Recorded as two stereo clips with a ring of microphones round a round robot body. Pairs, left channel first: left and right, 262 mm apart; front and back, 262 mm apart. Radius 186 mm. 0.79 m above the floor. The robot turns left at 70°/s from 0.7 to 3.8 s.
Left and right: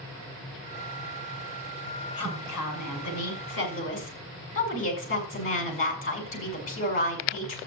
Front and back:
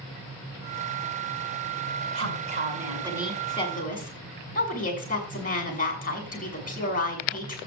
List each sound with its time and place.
2.1 s a woman speaking: 170° left, 6 m; by 7.6 s 55° left, 6 m